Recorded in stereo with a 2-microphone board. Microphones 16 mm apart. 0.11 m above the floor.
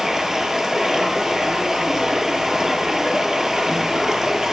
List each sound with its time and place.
0.0 s running water: 40° right (ahead or behind), 0.7 m